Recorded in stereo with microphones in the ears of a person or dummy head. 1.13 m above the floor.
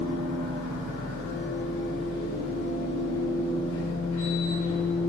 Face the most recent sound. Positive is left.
turn(degrees=30)  # may be behind; listen again after turning